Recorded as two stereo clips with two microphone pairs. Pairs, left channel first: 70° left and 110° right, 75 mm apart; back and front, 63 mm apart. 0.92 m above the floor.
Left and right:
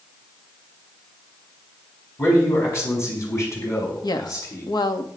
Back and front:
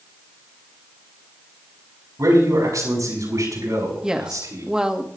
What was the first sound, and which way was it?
A man speaking, 20° left.